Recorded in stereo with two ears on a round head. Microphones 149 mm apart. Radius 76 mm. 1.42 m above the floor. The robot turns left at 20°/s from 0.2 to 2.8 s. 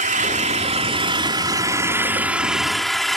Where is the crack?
I don't hear a crack.